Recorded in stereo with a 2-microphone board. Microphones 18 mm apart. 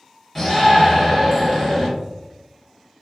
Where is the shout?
Centre (ahead or behind), 1.6 m.